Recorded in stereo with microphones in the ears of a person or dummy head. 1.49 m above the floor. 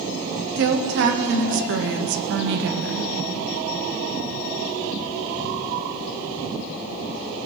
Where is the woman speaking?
70° right (ahead or behind), 1.3 m.